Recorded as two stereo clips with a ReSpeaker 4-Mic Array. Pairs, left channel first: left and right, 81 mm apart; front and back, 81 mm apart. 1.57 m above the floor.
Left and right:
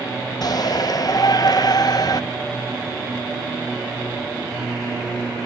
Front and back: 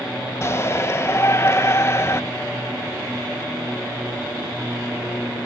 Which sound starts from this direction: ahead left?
A shout, at 0.4 s.